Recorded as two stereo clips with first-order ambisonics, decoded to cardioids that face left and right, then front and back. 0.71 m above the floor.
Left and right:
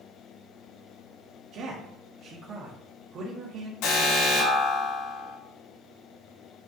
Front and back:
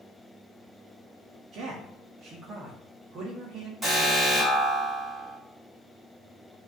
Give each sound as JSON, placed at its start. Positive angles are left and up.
{"t": 1.5, "sound": "a man speaking", "azimuth_deg": -135, "distance_m": 1.1}
{"t": 3.8, "sound": "an alarm", "azimuth_deg": 105, "distance_m": 4.5}